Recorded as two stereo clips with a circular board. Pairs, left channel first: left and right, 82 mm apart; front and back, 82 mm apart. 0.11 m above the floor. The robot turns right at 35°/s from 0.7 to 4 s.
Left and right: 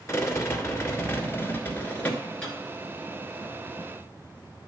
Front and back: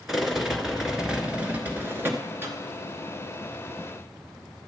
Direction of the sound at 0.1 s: 100° left.